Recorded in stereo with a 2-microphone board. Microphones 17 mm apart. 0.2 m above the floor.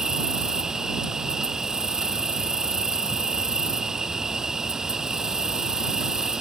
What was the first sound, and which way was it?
An insect, 35° right (ahead or behind).